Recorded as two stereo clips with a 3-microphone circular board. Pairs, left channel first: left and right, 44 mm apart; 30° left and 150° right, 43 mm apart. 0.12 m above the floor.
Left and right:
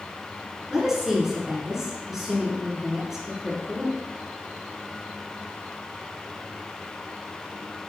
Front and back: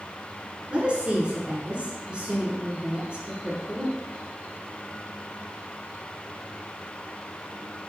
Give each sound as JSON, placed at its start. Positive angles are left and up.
{"t": 0.7, "sound": "a woman speaking", "azimuth_deg": -155, "distance_m": 1.2}